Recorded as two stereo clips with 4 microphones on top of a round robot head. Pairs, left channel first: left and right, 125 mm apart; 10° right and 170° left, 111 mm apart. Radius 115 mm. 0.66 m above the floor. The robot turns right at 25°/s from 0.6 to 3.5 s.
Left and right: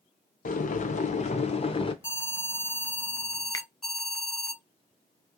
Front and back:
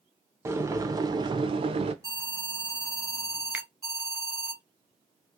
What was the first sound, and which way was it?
Boiling, 105° left.